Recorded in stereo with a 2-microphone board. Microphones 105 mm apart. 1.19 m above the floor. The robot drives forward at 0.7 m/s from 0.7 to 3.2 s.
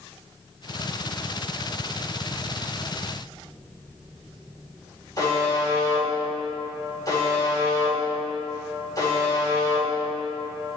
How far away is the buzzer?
About 4 m.